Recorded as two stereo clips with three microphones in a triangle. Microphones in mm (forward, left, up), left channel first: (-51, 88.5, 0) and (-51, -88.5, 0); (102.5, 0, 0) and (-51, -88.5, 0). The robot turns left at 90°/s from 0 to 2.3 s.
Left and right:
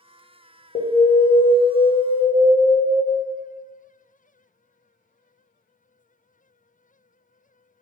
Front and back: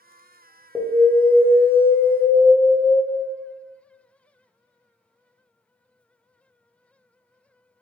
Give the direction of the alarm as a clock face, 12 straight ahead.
8 o'clock.